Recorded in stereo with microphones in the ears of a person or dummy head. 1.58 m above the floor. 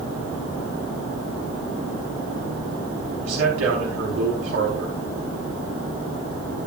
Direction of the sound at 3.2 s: 75° right (ahead or behind).